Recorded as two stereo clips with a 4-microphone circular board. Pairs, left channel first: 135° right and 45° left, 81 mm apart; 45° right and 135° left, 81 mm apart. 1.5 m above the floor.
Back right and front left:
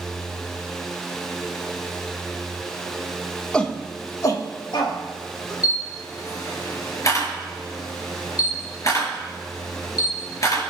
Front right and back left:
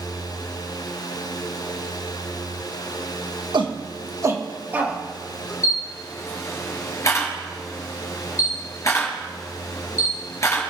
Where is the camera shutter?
95° right, 4 m.